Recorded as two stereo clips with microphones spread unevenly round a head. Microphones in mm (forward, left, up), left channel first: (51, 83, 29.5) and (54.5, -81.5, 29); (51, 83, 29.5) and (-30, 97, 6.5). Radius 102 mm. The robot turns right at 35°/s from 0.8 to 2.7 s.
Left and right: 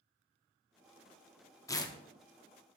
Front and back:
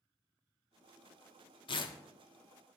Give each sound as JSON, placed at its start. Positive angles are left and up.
{"t": 1.7, "sound": "tearing paper", "azimuth_deg": 20, "distance_m": 0.6}